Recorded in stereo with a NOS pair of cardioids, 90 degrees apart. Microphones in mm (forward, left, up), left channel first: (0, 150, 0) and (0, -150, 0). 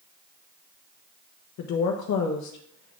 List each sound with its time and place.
1.6 s a woman speaking: 70° left, 1.0 m